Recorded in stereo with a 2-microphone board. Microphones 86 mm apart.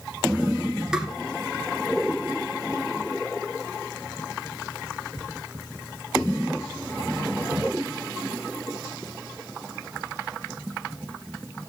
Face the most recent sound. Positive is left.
turn(degrees=-10)  # may be behind; listen again after turning